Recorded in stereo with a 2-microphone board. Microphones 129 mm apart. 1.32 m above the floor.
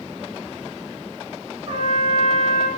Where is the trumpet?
45° right (ahead or behind), 4 m.